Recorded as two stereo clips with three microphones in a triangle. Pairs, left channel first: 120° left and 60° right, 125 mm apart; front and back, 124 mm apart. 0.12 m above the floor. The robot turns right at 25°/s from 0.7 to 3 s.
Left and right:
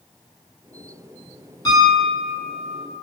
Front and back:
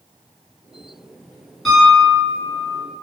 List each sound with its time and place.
1.6 s a piano: 90° left, 1.8 m; by 2.8 s 120° left, 1.8 m